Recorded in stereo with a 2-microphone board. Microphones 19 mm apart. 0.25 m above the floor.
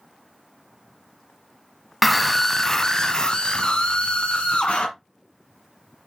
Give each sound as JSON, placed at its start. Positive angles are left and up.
{"t": 2.0, "sound": "a scream", "side_deg": 0, "distance_m": 1.5}